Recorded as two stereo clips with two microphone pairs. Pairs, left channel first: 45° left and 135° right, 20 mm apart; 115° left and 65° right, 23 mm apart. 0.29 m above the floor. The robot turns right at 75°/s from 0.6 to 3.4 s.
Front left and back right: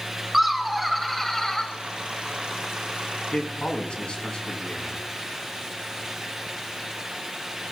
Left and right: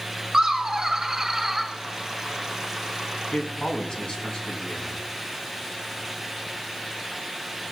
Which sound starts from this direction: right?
Laughter, at 0.3 s.